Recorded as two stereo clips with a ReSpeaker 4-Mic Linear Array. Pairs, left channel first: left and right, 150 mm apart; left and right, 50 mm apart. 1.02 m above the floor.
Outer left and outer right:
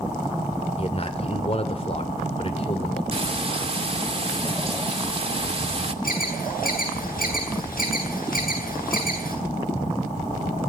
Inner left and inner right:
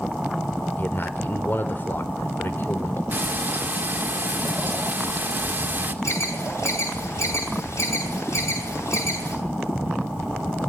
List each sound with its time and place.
0.8 s a man speaking: 40° left (ahead or behind), 4 m
3.1 s frying: 40° right (ahead or behind), 2.5 m
6.0 s an alarm: 70° left (ahead or behind), 10 m